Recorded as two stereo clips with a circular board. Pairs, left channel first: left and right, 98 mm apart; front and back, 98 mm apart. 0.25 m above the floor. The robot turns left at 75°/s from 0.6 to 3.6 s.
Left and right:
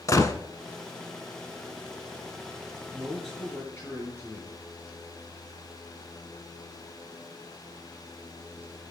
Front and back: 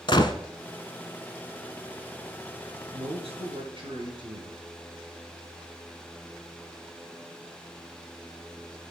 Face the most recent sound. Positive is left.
turn(degrees=155)